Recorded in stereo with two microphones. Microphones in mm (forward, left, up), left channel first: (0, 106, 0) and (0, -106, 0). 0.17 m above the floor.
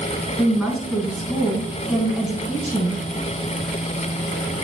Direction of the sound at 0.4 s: Centre (ahead or behind).